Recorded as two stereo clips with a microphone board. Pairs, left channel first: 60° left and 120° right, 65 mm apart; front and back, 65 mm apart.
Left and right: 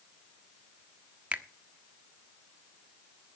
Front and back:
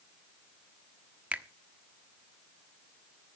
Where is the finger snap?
150° right, 1.1 m.